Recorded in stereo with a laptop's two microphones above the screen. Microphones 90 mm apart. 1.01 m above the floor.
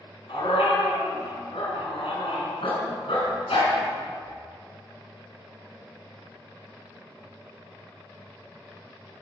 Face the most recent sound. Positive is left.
turn(degrees=80)